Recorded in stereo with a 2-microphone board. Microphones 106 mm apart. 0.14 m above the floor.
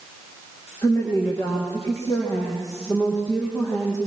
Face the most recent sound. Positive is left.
turn(degrees=30)  # may be behind; listen again after turning